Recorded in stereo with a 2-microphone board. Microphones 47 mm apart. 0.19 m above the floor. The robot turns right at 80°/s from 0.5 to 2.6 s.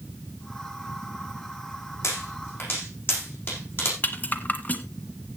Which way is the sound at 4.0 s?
35° left (ahead or behind).